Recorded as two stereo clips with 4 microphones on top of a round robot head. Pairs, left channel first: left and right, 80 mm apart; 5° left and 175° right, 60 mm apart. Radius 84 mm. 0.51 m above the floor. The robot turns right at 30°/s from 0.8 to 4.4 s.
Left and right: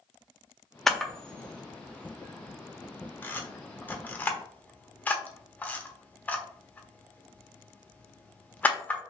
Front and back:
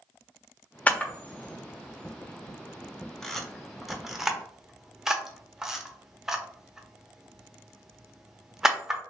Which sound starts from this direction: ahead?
A camera shutter, at 0.9 s.